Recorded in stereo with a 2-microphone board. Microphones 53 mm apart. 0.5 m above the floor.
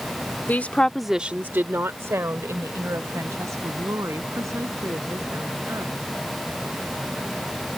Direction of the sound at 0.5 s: 40° left (ahead or behind).